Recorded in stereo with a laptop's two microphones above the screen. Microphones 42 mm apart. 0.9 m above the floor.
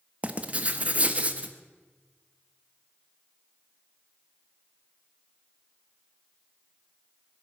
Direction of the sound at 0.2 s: 35° right (ahead or behind).